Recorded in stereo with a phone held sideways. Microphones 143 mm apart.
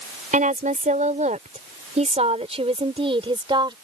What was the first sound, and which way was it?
A woman speaking, 75° right (ahead or behind).